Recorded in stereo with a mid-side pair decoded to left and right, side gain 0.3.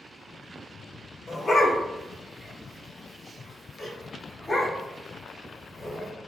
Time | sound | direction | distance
1.3 | a dog barking | 45° left | 1.5 m